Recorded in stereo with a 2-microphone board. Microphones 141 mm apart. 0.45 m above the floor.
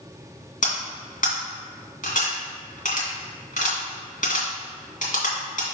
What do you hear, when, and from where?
0.6 s cutlery clinking: 65° left (ahead or behind), 2 m